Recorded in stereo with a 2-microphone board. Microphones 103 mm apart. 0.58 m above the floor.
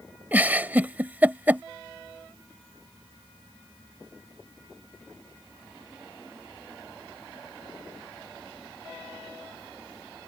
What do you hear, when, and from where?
0.3 s a giggle: 20° right (ahead or behind)